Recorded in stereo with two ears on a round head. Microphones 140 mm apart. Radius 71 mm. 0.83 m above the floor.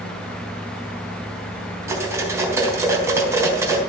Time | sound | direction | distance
1.9 | cutlery clinking | 20° right (ahead or behind) | 4 m